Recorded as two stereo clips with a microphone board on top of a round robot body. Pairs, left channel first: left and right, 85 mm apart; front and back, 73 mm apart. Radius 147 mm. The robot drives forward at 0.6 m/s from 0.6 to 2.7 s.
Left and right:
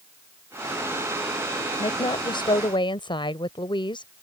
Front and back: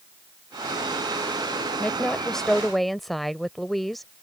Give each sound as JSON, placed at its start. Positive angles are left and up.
{"t": 1.8, "sound": "a woman speaking", "azimuth_deg": 75}